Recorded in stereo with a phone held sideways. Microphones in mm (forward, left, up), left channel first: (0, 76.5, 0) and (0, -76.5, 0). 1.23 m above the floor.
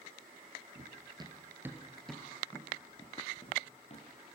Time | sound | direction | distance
0.8 | running footsteps | 40° right (ahead or behind) | 1.6 m